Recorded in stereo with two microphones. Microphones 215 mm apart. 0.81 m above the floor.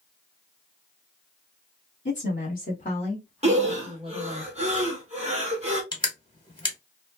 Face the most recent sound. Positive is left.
turn(degrees=20)  # may be behind; listen again after turning